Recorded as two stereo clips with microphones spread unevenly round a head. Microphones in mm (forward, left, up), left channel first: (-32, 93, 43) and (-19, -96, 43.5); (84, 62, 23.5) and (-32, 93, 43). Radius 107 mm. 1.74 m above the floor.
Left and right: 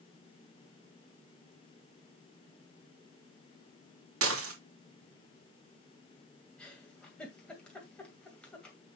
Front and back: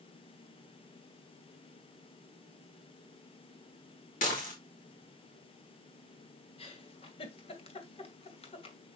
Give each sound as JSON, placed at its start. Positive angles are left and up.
{"t": 4.2, "sound": "dishes clattering", "azimuth_deg": -60, "distance_m": 2.5}
{"t": 6.6, "sound": "a giggle", "azimuth_deg": 10, "distance_m": 2.0}